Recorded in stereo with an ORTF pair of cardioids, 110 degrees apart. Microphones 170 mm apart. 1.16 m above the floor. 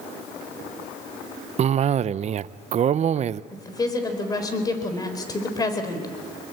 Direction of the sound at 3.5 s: 20° left.